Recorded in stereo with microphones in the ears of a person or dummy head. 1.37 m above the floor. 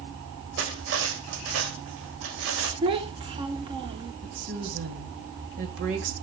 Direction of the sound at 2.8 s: 25° right (ahead or behind).